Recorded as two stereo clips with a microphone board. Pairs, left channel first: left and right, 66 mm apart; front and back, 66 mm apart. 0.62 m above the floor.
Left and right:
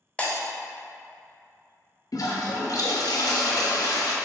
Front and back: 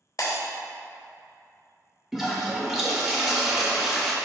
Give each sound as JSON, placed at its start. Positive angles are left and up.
{"t": 0.2, "sound": "breaking glass", "azimuth_deg": 20, "distance_m": 0.6}
{"t": 2.1, "sound": "a toilet flushing", "azimuth_deg": 95, "distance_m": 0.5}